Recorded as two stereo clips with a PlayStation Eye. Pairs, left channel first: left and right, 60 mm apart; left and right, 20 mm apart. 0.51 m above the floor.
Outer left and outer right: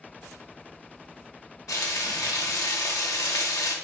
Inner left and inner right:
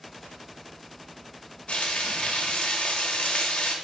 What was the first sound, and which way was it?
Frying, 75° left (ahead or behind).